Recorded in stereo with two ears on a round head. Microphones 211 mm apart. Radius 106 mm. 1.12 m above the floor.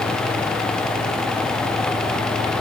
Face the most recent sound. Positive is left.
No sound to turn to.